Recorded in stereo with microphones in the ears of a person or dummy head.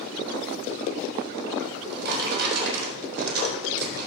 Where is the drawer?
65° right (ahead or behind), 4 m.